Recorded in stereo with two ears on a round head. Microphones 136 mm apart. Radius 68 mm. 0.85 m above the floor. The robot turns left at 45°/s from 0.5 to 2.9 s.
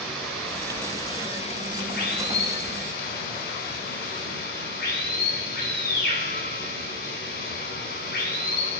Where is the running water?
Straight behind, 4 m; by 8.8 s 70° left, 4 m.